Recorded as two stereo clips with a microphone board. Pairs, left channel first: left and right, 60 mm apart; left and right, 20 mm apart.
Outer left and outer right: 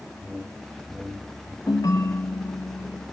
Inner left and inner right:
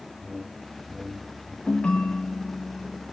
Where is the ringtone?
75° left (ahead or behind), 0.7 m.